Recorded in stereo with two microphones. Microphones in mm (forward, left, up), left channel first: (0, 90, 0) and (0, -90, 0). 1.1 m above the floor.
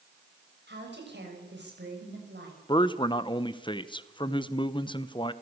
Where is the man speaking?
25° left (ahead or behind), 0.9 m.